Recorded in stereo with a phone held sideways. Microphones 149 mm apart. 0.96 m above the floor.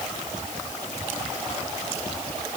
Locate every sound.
Only background noise.